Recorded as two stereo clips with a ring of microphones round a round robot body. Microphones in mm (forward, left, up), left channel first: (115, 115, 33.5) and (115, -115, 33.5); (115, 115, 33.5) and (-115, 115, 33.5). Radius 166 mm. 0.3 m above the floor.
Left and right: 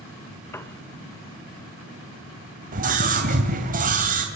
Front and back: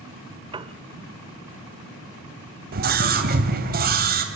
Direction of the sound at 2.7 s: 140° right.